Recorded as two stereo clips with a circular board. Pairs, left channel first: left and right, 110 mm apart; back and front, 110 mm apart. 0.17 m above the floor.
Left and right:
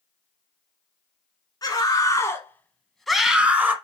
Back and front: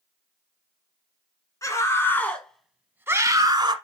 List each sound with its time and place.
1.6 s a scream: 130° left, 1.5 m; by 3.7 s 25° right, 1.3 m